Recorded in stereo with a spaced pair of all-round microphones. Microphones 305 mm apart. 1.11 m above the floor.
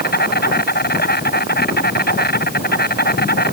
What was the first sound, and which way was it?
An insect, 30° left (ahead or behind).